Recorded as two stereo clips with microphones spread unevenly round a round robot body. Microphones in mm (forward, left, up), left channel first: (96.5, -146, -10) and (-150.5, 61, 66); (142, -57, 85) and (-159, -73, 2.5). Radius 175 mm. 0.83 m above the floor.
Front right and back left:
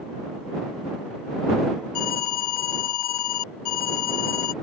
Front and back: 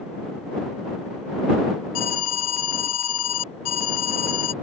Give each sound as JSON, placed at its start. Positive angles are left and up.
{"t": 1.9, "sound": "an alarm", "azimuth_deg": -25}